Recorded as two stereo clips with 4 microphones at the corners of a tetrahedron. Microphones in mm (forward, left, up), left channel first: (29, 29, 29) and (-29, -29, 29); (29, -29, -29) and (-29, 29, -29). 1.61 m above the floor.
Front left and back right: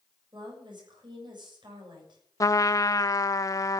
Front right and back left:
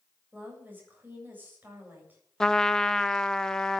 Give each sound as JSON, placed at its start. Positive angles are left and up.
{"t": 0.3, "sound": "a woman speaking", "azimuth_deg": -155, "distance_m": 7.5}
{"t": 2.4, "sound": "a trumpet", "azimuth_deg": 35, "distance_m": 0.8}